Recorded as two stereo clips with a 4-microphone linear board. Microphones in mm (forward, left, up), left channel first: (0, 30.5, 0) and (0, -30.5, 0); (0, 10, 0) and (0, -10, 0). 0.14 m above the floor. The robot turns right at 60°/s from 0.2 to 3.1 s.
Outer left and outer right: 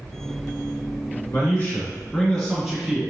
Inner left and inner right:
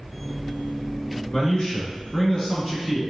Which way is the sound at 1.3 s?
100° left.